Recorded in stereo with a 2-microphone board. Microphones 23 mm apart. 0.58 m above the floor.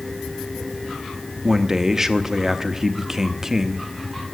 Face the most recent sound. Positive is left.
turn(degrees=-20)  # may be behind; listen again after turning